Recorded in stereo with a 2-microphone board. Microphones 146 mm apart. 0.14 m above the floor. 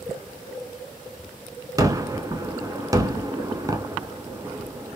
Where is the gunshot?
25° right (ahead or behind), 0.6 m.